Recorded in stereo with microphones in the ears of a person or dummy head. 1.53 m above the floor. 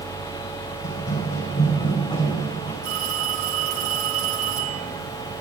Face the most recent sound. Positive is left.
turn(degrees=-65)  # may be behind; listen again after turning